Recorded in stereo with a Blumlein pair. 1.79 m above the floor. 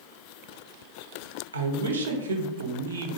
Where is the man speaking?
70° right, 0.6 m.